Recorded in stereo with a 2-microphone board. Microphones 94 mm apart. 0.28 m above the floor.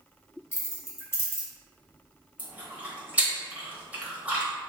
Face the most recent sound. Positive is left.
turn(degrees=-15)  # may be behind; listen again after turning